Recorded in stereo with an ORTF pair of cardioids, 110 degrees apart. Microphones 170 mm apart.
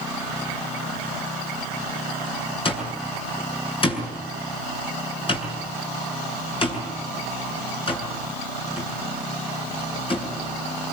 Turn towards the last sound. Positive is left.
turn(degrees=30)